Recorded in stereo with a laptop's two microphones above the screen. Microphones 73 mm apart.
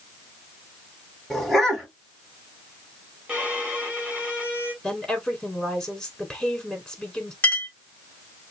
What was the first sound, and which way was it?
A dog barking, centre (ahead or behind).